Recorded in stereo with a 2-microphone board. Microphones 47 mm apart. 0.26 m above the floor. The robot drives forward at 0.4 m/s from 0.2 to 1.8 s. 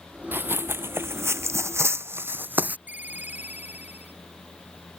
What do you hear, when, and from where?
0.3 s running footsteps: 45° right (ahead or behind); by 2.8 s 35° right (ahead or behind)
2.9 s a ringtone: 40° right (ahead or behind)